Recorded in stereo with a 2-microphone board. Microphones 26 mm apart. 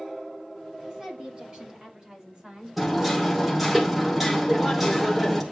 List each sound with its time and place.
0.9 s a woman speaking: 35° right (ahead or behind), 5.5 m; by 3.8 s 30° right (ahead or behind), 3 m
2.8 s hammering: 5° right (ahead or behind), 2 m